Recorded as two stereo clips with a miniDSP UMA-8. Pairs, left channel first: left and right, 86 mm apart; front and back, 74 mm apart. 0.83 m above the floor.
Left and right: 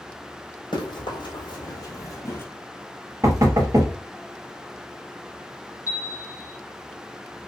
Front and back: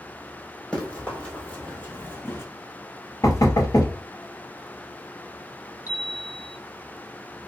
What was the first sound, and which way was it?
Running footsteps, 75° left.